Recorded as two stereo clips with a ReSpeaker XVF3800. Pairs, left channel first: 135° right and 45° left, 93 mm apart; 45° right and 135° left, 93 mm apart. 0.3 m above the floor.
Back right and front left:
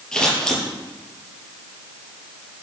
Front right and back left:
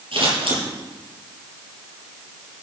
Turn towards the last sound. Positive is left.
turn(degrees=145)